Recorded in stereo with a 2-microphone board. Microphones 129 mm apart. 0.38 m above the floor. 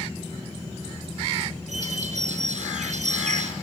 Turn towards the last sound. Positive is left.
turn(degrees=-80)